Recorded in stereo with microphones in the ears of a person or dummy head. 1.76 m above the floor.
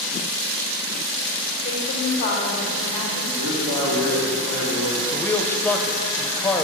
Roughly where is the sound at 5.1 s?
Centre.